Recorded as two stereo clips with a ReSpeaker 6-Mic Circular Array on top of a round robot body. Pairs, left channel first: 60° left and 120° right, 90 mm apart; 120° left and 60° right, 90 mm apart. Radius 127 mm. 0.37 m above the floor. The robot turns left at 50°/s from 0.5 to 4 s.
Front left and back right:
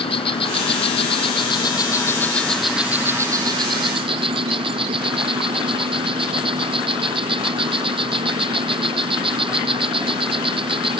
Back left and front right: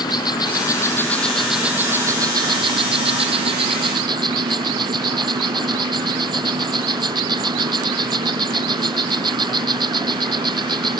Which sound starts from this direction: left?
An insect, at 0.0 s.